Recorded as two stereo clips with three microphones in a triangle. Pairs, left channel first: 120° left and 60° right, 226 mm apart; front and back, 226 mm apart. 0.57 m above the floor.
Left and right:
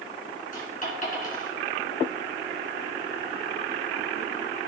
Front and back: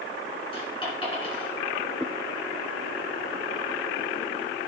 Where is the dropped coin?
65° left, 3 m.